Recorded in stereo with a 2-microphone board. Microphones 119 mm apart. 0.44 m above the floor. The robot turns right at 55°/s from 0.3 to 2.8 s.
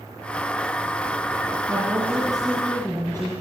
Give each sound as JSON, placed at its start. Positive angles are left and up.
{"t": 1.7, "sound": "a woman speaking", "azimuth_deg": -40, "distance_m": 7.0}